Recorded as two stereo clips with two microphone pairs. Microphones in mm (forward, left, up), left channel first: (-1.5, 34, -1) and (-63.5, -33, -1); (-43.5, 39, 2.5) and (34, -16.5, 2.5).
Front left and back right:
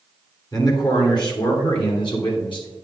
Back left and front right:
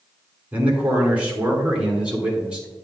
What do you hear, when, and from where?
0.5 s a man speaking: 35° left, 2 m; by 2.7 s 45° left, 3.5 m